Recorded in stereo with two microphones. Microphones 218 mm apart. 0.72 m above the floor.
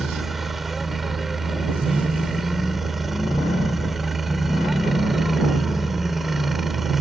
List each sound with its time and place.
0.0 s a helicopter: centre (ahead or behind)